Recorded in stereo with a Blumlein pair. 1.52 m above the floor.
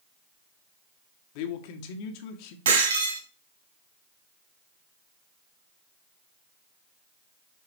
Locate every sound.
1.4 s a man speaking: 45° left, 1.2 m
2.6 s breaking glass: 60° right, 3 m